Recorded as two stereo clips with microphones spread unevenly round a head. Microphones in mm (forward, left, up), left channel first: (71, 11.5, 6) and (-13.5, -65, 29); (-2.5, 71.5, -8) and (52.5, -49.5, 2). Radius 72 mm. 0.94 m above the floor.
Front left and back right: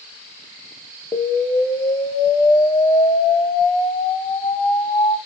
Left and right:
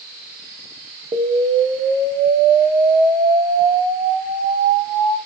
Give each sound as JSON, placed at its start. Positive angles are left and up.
{"t": 1.1, "sound": "an explosion", "azimuth_deg": -5, "distance_m": 0.8}